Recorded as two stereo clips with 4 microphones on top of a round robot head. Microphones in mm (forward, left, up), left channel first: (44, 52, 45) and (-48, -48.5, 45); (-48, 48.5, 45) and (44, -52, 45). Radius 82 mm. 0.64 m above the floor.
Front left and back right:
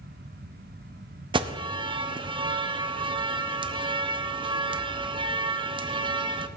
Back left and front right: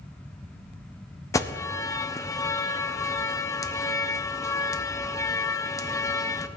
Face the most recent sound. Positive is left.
turn(degrees=-170)